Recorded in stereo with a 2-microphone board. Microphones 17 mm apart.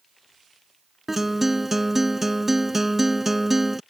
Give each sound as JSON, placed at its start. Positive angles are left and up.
{"t": 1.1, "sound": "a guitar", "side_deg": -20}